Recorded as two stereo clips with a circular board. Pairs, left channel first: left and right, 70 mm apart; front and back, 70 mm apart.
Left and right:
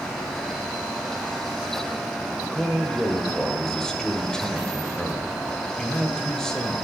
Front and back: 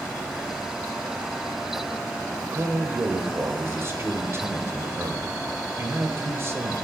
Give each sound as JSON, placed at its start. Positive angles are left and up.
{"t": 2.5, "sound": "a man speaking", "azimuth_deg": 165, "distance_m": 1.0}